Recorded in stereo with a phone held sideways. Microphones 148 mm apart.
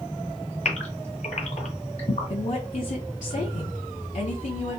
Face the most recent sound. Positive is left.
turn(degrees=55)  # may be behind; listen again after turning